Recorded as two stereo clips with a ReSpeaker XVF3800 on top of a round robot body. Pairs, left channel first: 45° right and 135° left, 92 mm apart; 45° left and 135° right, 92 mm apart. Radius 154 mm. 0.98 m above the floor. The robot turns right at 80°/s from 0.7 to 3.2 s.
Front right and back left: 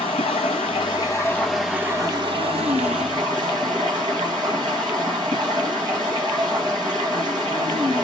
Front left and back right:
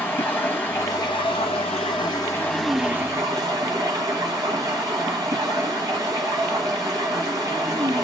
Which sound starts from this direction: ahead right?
Running water, at 0.0 s.